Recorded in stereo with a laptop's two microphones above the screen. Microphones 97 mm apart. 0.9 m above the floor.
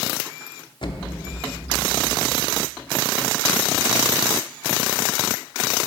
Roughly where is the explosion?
Left.